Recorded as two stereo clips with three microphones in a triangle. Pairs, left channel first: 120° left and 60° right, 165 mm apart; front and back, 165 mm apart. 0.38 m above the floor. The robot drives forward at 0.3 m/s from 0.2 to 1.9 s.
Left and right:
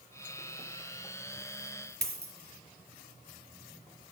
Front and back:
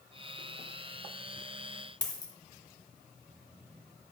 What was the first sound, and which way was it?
A dropped coin, 65° right.